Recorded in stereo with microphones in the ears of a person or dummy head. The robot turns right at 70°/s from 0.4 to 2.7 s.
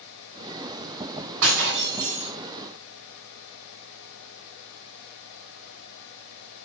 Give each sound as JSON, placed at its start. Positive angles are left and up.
{"t": 1.4, "sound": "breaking glass", "azimuth_deg": -95, "distance_m": 3.5}